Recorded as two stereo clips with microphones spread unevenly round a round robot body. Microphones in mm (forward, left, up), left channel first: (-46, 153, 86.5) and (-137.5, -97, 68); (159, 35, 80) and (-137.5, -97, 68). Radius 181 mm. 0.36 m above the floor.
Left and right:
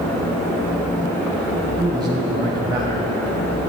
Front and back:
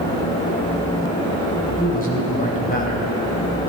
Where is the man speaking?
40° right, 2.5 m.